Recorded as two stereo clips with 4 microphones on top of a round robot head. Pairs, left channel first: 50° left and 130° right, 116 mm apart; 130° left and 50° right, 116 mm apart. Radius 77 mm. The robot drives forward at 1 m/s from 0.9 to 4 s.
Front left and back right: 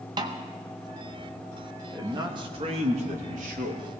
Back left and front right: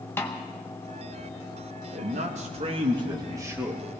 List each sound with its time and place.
0.2 s a snare drum: 165° right, 0.6 m
1.9 s a man speaking: 65° right, 1.8 m; by 3.8 s 125° right, 2.0 m